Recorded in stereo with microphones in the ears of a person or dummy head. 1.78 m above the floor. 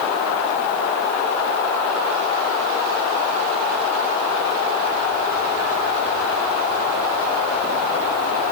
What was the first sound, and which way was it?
Only background noise.